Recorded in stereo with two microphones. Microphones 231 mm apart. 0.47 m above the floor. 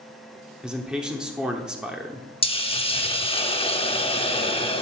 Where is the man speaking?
5° right (ahead or behind), 0.9 m.